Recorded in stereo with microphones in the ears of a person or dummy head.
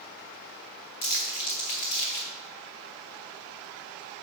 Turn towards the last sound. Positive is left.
turn(degrees=35)  # may be behind; listen again after turning